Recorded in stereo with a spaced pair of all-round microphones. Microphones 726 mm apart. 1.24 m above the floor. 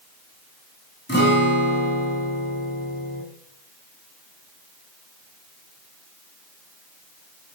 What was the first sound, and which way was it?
A guitar, 15° left (ahead or behind).